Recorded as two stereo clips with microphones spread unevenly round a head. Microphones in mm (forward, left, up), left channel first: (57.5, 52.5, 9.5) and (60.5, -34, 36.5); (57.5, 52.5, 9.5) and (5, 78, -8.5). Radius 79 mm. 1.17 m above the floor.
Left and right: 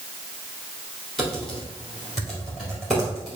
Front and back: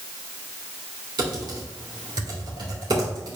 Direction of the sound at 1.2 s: 175° right.